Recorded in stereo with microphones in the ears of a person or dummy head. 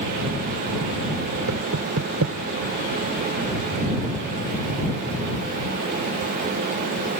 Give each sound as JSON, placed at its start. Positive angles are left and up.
{"t": 1.5, "sound": "knocking", "side_deg": -75}